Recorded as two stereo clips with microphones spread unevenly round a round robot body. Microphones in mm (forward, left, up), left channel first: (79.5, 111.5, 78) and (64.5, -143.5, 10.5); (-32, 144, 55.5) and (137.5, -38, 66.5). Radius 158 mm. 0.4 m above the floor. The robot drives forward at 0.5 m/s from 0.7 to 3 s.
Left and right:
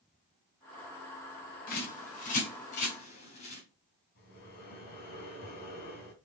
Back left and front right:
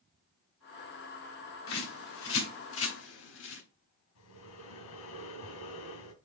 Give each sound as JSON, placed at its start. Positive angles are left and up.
{"t": 1.7, "sound": "a bird", "azimuth_deg": 150, "distance_m": 3.0}
{"t": 4.2, "sound": "breathing", "azimuth_deg": 150, "distance_m": 2.5}